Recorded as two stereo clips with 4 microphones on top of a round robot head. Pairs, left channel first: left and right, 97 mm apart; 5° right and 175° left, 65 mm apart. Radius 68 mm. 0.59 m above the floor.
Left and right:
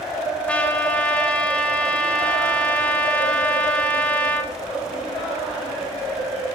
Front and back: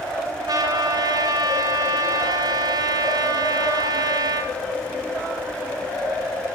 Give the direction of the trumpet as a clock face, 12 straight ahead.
6 o'clock.